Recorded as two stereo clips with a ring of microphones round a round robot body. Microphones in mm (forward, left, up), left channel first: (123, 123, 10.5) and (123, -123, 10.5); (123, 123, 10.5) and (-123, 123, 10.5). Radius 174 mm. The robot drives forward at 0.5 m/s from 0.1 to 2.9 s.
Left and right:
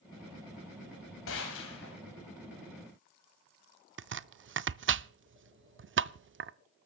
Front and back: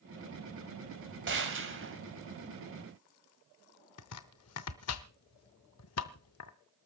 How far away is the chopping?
About 0.6 m.